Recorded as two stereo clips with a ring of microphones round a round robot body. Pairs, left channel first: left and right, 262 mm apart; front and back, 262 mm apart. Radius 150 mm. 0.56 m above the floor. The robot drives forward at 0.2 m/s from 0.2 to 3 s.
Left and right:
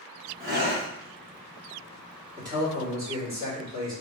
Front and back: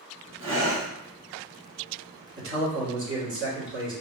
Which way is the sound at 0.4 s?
140° right.